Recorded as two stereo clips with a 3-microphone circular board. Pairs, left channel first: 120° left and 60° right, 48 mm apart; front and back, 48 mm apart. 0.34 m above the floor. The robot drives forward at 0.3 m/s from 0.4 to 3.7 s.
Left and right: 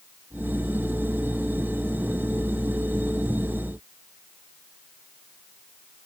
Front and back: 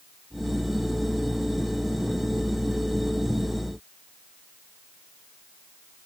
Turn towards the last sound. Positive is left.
No sound to turn to.